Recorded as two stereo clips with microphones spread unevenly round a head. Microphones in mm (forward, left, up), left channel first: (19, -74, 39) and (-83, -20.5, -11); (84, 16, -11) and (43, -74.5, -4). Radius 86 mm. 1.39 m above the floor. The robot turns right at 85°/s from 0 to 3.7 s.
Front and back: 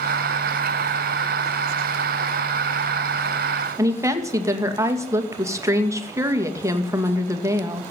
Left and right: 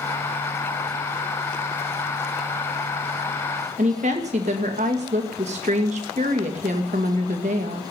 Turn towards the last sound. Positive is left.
turn(degrees=-150)